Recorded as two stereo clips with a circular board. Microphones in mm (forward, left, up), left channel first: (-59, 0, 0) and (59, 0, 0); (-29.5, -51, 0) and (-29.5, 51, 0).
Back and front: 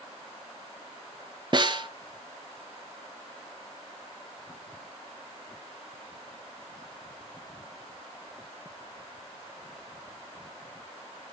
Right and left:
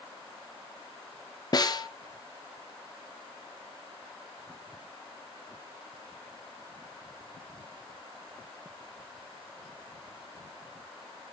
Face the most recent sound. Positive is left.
turn(degrees=-45)